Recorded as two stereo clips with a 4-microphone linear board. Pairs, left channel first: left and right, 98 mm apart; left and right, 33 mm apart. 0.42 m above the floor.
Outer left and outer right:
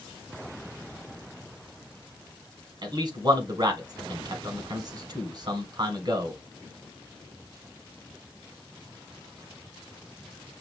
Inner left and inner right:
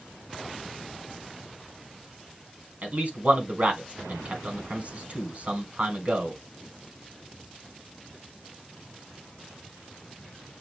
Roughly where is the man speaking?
Right.